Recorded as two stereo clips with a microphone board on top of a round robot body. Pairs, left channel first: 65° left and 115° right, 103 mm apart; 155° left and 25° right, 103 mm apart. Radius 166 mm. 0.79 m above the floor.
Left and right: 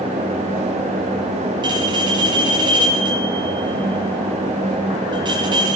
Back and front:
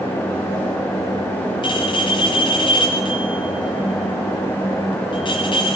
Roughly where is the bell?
Behind.